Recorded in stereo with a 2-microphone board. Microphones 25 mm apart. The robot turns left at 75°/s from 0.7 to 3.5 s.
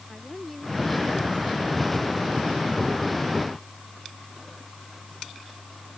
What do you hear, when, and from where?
0.1 s a woman speaking: 175° left; by 3.2 s 10° right